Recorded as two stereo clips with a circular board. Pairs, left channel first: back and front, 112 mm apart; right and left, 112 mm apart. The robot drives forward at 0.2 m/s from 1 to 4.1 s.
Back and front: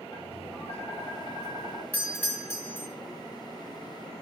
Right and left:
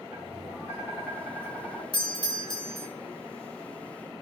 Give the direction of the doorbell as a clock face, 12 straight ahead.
4 o'clock.